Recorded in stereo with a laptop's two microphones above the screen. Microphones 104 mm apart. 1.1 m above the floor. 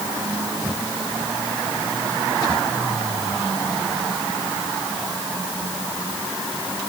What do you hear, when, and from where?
Only background noise.